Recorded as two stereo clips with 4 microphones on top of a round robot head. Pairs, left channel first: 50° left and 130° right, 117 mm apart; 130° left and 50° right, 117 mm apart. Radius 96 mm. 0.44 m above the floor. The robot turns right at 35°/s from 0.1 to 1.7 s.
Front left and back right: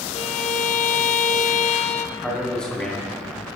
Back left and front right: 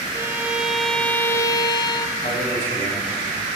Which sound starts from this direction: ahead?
A violin, at 0.1 s.